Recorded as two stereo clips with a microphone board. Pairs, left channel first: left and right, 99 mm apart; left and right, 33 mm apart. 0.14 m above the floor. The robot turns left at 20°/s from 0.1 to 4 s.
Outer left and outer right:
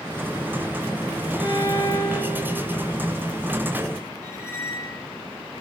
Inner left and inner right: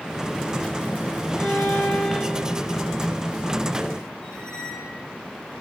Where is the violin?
50° left (ahead or behind), 3.5 m; by 2.7 s 20° left (ahead or behind), 3.5 m.